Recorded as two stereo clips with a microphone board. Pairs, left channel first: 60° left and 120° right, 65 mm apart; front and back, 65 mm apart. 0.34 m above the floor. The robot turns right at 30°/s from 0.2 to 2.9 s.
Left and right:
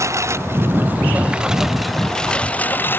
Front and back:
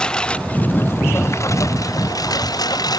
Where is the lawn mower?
75° right; by 3.0 s 5° left.